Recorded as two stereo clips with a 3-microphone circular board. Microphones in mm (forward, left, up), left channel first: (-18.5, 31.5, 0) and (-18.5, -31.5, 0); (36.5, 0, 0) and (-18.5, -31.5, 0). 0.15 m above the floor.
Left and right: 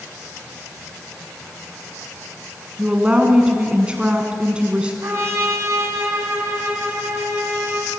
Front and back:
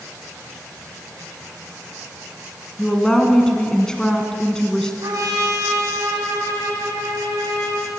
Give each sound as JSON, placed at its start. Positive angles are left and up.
{"t": 2.8, "sound": "a woman speaking", "azimuth_deg": -35, "distance_m": 1.7}
{"t": 5.0, "sound": "a trumpet", "azimuth_deg": -135, "distance_m": 6.5}